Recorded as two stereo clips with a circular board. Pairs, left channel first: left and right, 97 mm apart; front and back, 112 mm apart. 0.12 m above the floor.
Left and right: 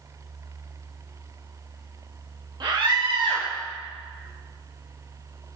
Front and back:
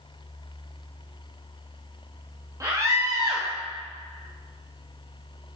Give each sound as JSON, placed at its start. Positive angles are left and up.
{"t": 2.6, "sound": "a scream", "azimuth_deg": -125, "distance_m": 3.0}